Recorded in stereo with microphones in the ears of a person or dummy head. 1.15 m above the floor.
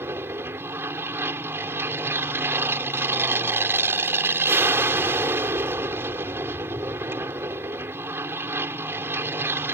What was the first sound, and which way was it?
An aircraft, 15° right (ahead or behind).